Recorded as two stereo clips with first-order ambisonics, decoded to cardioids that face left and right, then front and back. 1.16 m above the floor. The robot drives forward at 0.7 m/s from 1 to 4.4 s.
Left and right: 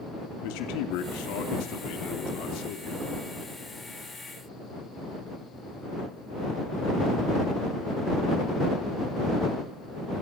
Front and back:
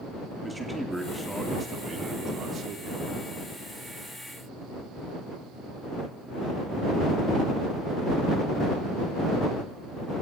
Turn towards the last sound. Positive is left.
turn(degrees=140)